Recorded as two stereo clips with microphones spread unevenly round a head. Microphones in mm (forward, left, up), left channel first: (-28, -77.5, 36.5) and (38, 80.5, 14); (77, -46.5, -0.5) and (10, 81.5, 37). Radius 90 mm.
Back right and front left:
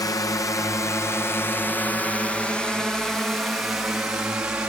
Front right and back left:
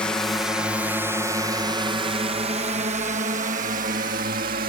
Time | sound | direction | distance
0.0 | a drone | 60° right | ?